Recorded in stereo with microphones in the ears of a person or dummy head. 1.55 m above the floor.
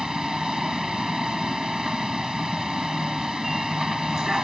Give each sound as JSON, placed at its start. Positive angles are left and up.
{"t": 0.0, "sound": "a vehicle", "side_deg": 5}